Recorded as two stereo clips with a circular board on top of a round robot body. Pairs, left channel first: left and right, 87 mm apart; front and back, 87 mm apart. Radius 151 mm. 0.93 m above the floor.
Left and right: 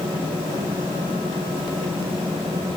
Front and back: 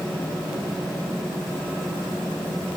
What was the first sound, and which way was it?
Only background noise.